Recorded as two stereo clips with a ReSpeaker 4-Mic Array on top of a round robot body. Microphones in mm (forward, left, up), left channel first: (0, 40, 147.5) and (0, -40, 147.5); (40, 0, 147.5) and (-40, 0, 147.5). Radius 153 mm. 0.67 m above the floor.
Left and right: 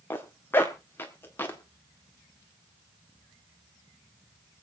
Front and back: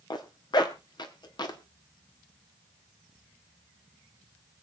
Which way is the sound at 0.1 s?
30° left.